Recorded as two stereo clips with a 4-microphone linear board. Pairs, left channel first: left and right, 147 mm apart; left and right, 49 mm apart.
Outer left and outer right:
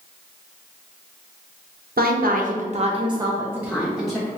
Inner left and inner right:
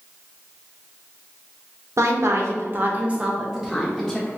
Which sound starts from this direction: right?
A woman speaking, at 2.0 s.